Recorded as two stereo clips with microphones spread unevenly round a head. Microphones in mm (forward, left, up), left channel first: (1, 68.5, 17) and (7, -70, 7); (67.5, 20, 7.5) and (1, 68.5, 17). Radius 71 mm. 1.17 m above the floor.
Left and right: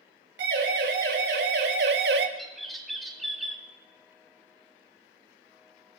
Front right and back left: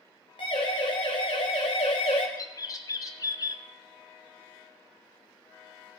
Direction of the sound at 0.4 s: 85° right.